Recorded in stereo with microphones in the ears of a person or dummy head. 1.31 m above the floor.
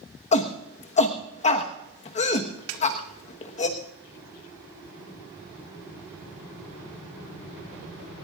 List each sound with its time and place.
0.3 s a shout: 35° left (ahead or behind), 1.3 m
2.7 s a snare drum: 75° right (ahead or behind), 1.8 m